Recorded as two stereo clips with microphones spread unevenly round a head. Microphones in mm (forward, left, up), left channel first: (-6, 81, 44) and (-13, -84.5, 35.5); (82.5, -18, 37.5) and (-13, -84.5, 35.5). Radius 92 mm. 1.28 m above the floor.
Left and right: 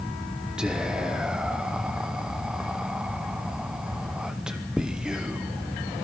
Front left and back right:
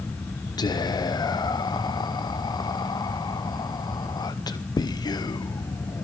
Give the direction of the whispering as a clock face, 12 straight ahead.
12 o'clock.